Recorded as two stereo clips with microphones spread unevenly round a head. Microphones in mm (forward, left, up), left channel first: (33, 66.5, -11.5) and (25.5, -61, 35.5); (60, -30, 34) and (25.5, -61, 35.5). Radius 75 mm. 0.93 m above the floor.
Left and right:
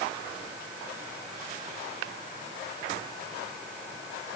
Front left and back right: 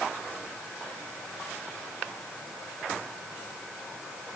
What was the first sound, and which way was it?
Only background noise.